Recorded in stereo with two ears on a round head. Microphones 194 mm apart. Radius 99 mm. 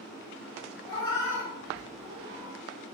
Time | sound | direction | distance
0.9 | a cat meowing | 25° left (ahead or behind) | 1.0 m